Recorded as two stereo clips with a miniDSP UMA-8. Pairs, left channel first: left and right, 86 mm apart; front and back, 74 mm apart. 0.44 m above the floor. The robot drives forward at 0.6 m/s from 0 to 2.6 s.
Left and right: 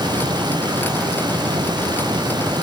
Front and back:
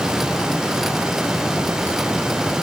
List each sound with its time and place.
Only background noise.